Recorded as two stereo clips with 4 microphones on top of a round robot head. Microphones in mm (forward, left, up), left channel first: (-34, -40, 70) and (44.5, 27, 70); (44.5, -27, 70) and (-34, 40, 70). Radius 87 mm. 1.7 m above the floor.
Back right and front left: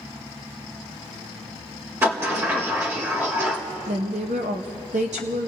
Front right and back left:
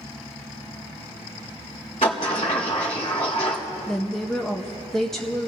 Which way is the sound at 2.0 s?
20° right.